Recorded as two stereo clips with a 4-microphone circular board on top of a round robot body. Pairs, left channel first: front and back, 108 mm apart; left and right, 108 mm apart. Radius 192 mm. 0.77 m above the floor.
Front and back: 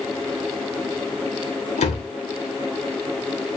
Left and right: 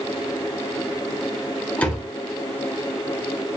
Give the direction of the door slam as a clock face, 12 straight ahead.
12 o'clock.